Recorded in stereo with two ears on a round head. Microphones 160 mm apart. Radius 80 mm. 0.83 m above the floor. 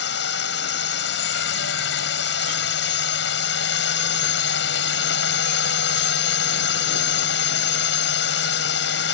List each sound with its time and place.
0.0 s a drone: 70° left (ahead or behind)